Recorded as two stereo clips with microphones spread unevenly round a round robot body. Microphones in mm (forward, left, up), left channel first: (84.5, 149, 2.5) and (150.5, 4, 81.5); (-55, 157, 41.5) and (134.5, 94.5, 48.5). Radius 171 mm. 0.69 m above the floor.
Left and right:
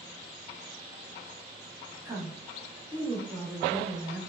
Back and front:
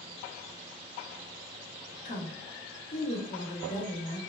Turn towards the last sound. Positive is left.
turn(degrees=-165)